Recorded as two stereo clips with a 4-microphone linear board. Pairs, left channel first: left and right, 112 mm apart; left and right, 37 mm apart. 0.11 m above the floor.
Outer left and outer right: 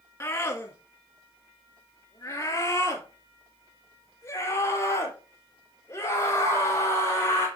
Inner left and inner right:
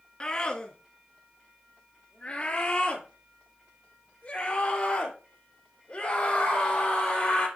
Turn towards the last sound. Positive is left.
turn(degrees=25)  # may be behind; listen again after turning